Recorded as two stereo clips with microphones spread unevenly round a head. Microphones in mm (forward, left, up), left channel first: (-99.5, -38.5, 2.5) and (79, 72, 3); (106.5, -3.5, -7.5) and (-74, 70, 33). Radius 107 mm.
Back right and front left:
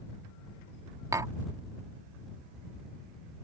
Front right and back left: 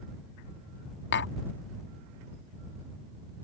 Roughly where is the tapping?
Ahead right.